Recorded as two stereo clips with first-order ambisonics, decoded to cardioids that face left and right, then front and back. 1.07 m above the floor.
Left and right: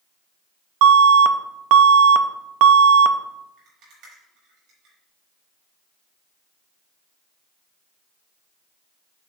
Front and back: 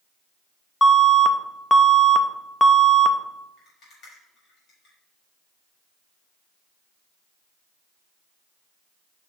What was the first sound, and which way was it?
An alarm, 80° right.